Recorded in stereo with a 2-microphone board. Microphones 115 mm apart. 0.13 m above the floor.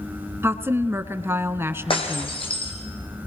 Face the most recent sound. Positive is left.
turn(degrees=50)  # may be behind; listen again after turning